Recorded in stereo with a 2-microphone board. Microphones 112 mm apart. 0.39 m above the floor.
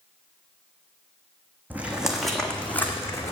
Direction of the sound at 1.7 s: 15° right (ahead or behind).